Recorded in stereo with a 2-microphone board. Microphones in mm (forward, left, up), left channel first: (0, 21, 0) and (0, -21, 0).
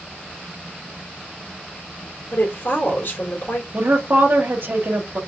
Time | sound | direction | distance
2.3 | a woman speaking | 60° left (ahead or behind) | 2 m
3.7 | a woman speaking | 55° right (ahead or behind) | 1.2 m